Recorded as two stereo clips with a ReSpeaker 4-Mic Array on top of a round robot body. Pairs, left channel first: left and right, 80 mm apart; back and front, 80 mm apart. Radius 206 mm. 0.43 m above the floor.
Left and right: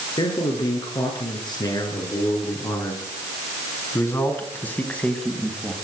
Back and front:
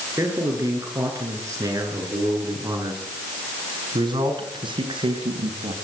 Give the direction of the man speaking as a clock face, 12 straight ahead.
10 o'clock.